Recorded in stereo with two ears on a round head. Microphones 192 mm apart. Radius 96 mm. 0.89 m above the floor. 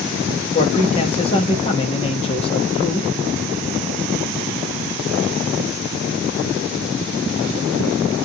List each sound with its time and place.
0.5 s a man speaking: 25° left (ahead or behind), 1.2 m